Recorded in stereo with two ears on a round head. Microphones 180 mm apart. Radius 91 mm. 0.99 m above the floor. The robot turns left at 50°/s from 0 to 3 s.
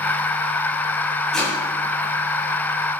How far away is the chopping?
About 8.5 m.